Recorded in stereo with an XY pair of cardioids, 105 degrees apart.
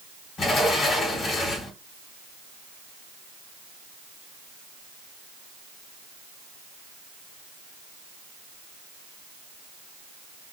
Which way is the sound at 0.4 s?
55° left.